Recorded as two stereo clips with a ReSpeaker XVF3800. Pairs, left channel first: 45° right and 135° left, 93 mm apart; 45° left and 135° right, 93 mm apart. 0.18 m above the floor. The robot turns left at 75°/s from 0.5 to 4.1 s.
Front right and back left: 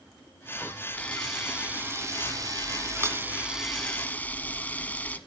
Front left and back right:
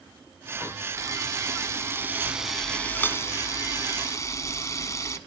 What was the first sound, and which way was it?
A camera shutter, 105° right.